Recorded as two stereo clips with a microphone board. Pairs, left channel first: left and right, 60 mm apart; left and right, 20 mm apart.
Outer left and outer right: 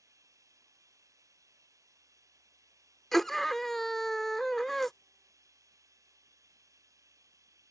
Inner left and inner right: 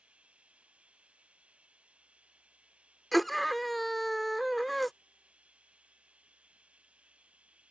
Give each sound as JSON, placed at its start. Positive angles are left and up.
{"t": 0.0, "sound": "running water", "side_deg": -75}
{"t": 3.1, "sound": "a scream", "side_deg": 5}